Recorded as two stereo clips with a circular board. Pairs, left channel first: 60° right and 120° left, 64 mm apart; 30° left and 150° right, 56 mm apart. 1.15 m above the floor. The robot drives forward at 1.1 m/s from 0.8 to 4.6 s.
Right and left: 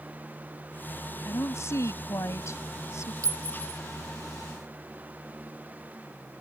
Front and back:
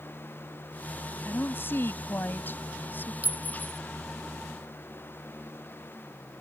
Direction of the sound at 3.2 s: 155° left.